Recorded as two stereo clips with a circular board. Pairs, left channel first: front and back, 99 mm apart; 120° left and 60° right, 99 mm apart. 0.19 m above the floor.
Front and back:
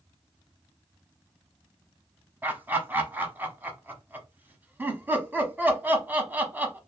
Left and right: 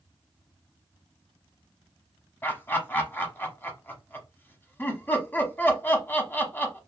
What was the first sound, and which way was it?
Laughter, 145° left.